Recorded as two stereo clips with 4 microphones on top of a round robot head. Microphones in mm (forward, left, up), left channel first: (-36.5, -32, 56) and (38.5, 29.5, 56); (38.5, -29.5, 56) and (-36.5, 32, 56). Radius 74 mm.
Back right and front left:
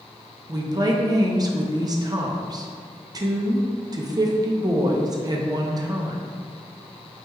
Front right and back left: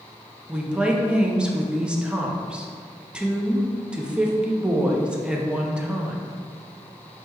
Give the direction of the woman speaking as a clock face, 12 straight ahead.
10 o'clock.